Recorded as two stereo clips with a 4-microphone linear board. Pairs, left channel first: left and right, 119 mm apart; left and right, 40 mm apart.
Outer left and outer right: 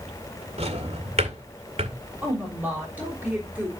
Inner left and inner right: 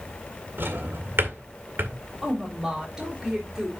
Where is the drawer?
65° right (ahead or behind), 2 m.